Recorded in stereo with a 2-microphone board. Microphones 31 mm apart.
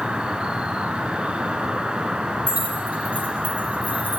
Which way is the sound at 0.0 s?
40° right (ahead or behind).